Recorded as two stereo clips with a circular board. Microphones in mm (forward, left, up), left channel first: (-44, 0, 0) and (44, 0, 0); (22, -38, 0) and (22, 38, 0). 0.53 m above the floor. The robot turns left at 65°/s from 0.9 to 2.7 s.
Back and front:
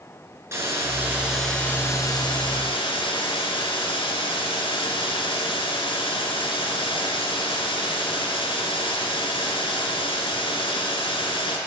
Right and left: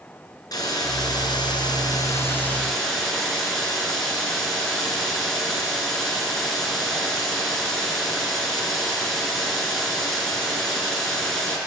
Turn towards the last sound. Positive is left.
turn(degrees=-175)